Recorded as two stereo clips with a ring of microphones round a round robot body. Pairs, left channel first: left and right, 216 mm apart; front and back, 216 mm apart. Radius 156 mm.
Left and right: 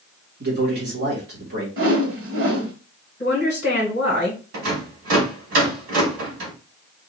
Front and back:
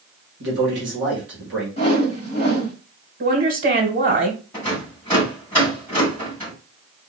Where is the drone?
No drone in this recording.